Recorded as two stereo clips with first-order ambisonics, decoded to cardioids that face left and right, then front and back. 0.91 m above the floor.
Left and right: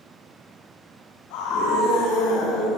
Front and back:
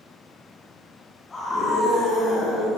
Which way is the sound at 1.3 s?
75° left.